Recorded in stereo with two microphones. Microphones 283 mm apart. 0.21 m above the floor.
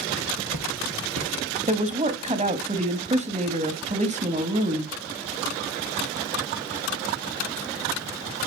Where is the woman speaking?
25° right (ahead or behind), 1.1 m.